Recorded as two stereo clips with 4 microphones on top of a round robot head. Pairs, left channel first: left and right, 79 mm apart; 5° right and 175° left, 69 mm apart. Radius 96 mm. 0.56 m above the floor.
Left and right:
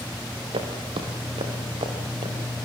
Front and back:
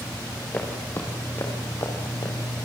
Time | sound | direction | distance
0.5 | footsteps | 75° right | 4.5 m